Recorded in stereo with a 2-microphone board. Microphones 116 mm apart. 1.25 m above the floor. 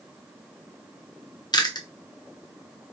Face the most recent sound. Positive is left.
turn(degrees=35)  # may be behind; listen again after turning